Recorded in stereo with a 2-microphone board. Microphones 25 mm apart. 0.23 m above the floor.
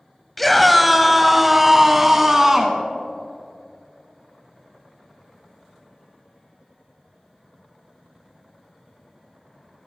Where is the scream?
5° left (ahead or behind), 0.9 m; by 2.8 s 20° right (ahead or behind), 1.9 m.